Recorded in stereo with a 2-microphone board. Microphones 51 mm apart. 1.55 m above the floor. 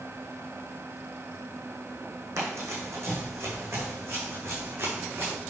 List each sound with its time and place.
2.4 s running footsteps: 70° right (ahead or behind), 4 m; by 5.3 s 55° right (ahead or behind), 6 m